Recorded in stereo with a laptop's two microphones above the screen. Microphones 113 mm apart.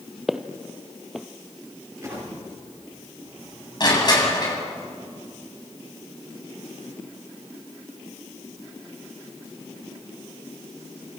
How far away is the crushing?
About 8 m.